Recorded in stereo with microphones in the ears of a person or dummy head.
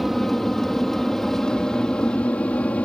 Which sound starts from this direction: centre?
An aircraft, at 0.0 s.